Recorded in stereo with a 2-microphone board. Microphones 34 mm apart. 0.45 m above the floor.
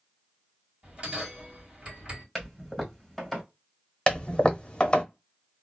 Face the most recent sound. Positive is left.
turn(degrees=30)  # may be behind; listen again after turning